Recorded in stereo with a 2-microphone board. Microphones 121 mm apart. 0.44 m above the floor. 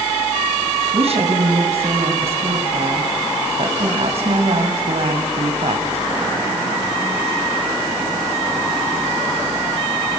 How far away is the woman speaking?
About 3 m.